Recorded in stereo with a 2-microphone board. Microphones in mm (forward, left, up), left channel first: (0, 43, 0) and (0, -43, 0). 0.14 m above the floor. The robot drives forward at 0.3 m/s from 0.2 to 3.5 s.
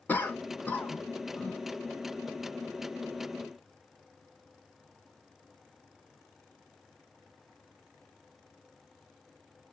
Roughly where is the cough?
Centre.